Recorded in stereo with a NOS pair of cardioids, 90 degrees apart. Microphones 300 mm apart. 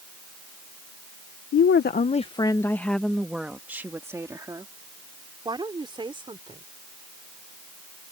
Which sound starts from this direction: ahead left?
A woman speaking, at 1.5 s.